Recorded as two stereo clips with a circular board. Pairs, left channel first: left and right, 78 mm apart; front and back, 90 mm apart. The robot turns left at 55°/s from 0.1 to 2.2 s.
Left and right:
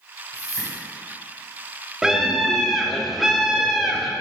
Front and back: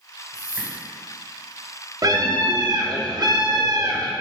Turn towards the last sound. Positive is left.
turn(degrees=-175)